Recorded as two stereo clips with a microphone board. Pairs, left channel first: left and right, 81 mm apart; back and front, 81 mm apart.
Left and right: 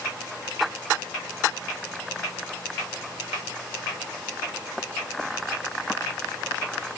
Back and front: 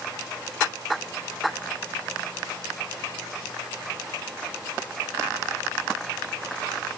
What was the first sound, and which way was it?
Only background noise.